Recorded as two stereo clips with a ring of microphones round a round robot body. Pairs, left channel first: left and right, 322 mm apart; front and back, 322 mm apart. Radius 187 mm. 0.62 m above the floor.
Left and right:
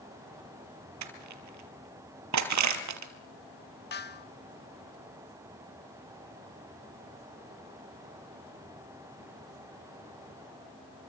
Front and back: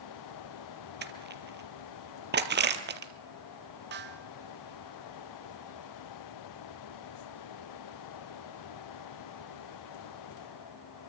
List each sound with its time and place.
1.0 s crushing: 125° right, 3 m
3.9 s a snare drum: 135° left, 1.6 m